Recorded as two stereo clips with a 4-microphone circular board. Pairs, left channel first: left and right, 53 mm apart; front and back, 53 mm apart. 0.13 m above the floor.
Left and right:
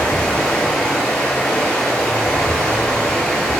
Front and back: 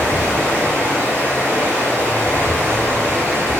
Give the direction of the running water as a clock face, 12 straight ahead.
7 o'clock.